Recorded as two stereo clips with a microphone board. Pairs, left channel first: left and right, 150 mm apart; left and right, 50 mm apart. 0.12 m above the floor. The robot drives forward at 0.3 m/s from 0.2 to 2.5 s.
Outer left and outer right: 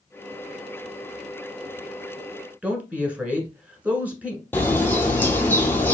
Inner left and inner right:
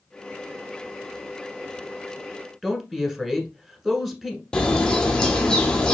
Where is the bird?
15° left (ahead or behind), 0.8 m.